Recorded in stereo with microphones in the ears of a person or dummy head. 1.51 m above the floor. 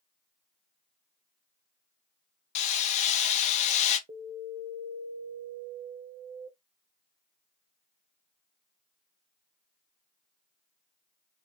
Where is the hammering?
40° left (ahead or behind), 1.1 m.